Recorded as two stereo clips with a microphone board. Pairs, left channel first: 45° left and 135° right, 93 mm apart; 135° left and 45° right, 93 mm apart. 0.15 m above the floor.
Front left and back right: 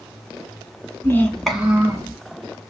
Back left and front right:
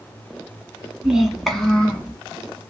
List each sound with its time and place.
1.0 s a child speaking: 30° left, 1.0 m; by 2.1 s 150° right, 1.1 m